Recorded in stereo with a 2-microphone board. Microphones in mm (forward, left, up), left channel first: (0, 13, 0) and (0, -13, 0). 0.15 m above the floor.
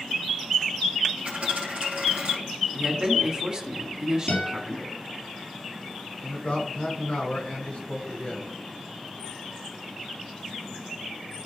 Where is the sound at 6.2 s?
45° left (ahead or behind), 2.5 m.